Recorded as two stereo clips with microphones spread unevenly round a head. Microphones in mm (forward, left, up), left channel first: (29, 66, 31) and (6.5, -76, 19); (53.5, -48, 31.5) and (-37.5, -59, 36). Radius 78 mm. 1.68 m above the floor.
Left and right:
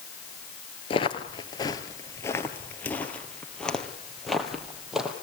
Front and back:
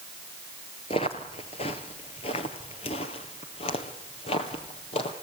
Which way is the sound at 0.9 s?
45° left.